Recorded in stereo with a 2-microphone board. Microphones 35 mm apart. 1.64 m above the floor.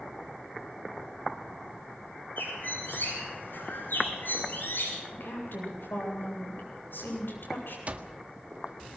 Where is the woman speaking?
85° left, 9 m.